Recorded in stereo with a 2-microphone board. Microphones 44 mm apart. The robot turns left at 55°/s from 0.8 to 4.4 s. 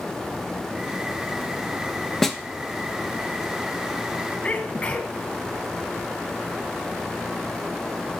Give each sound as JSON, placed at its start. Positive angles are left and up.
{"t": 2.2, "sound": "a snare drum", "side_deg": 5, "distance_m": 0.7}
{"t": 4.4, "sound": "a sneeze", "side_deg": 25, "distance_m": 1.9}